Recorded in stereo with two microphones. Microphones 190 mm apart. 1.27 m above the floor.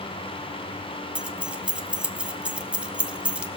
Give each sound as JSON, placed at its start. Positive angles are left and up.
{"t": 1.1, "sound": "keys jangling", "side_deg": -5, "distance_m": 0.7}